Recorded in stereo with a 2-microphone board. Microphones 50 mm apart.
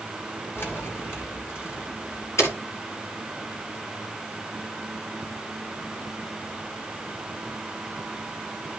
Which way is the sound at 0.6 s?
50° left (ahead or behind).